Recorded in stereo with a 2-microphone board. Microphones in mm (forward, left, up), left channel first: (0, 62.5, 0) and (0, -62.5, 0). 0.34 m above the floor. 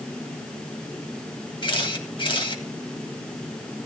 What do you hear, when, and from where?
1.6 s a camera shutter: 40° left (ahead or behind), 1.8 m